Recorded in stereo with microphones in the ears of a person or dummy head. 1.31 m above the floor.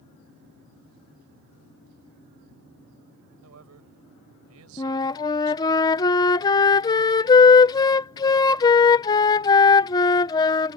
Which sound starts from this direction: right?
A man speaking, at 3.4 s.